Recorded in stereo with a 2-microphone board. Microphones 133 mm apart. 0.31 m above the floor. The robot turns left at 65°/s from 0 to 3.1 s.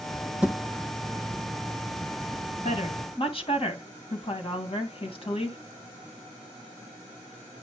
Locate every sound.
0.4 s a thud: 10° right (ahead or behind), 7 m; by 0.6 s centre (ahead or behind), 7 m
2.6 s a woman speaking: 60° left (ahead or behind), 2.5 m; by 5.6 s 45° left (ahead or behind), 2.5 m